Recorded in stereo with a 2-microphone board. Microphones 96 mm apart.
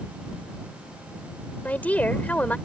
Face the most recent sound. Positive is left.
turn(degrees=15)  # may be behind; listen again after turning